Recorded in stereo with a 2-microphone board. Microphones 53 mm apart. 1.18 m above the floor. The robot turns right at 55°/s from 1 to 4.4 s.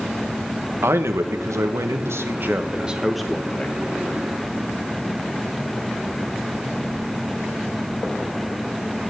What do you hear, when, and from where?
0.8 s a man speaking: 120° right, 1.2 m; by 3.8 s 30° left, 1.2 m